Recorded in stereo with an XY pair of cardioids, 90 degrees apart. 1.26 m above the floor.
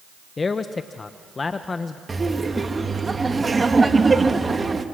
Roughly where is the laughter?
Ahead right.